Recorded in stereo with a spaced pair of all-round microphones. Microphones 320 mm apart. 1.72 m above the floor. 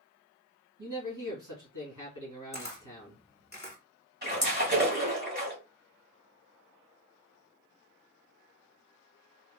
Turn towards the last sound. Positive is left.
turn(degrees=-35)  # may be behind; listen again after turning